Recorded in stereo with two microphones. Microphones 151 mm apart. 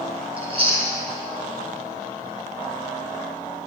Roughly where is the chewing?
Right.